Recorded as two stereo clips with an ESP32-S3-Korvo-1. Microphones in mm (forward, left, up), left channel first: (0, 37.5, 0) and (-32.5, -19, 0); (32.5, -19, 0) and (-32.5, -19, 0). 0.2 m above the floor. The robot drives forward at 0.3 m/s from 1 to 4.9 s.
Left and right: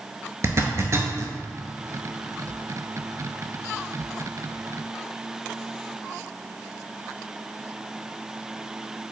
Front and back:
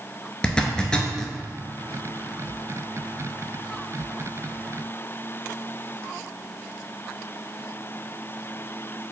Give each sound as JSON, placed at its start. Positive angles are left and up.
{"t": 0.4, "sound": "a zipper", "azimuth_deg": -75, "distance_m": 0.6}